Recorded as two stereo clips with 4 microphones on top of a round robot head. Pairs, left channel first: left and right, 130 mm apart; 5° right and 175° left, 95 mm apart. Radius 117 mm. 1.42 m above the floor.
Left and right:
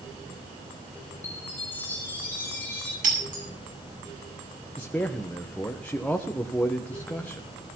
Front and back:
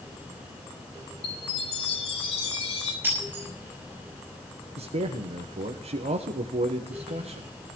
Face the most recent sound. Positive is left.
turn(degrees=170)